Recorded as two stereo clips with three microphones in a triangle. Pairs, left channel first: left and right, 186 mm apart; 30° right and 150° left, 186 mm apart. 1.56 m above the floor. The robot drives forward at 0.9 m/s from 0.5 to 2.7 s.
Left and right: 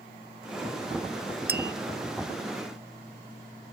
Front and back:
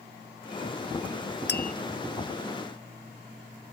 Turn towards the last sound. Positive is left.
turn(degrees=-150)